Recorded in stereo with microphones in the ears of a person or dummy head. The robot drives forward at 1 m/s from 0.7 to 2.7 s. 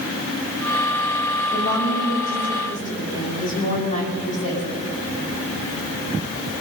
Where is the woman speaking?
55° left (ahead or behind), 2.5 m; by 4.6 s 40° left (ahead or behind), 3 m.